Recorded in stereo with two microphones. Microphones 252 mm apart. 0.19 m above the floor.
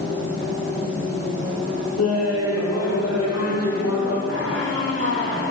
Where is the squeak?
55° right (ahead or behind), 9.5 m.